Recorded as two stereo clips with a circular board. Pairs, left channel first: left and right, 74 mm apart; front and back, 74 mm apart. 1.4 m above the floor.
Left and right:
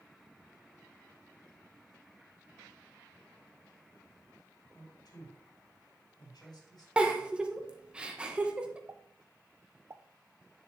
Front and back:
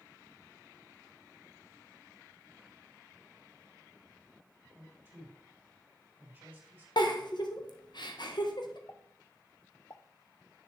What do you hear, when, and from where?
4.7 s a man speaking: 115° left, 3 m
7.0 s a giggle: 15° right, 1.3 m
8.9 s a pop: 45° right, 0.6 m